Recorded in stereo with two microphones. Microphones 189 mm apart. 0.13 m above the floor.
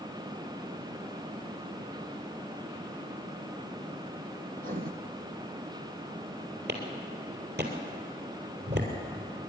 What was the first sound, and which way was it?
Writing, 45° right (ahead or behind).